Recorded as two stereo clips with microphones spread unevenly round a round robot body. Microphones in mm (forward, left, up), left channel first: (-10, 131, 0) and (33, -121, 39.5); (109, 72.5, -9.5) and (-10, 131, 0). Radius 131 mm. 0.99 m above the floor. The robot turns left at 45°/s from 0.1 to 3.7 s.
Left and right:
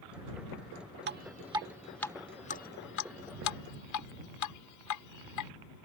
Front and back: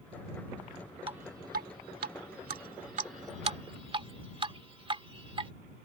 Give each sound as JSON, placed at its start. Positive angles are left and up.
{"t": 1.1, "sound": "dripping", "azimuth_deg": -135}